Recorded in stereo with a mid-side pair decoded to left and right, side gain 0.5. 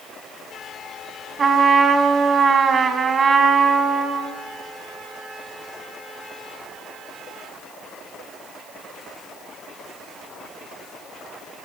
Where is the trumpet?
35° right, 4.5 m.